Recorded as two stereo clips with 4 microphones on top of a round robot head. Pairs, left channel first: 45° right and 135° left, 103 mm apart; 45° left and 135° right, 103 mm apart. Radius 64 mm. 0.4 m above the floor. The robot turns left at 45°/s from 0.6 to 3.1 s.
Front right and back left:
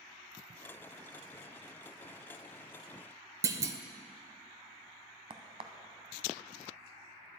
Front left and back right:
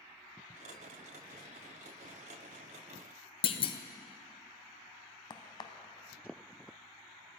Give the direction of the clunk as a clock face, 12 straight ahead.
9 o'clock.